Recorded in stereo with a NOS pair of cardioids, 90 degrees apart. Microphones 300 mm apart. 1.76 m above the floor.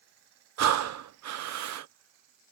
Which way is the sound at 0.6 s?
60° right.